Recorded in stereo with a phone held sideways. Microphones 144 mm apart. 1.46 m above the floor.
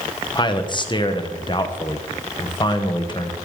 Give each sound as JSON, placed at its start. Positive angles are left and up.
{"t": 0.3, "sound": "a man speaking", "side_deg": 35, "distance_m": 1.1}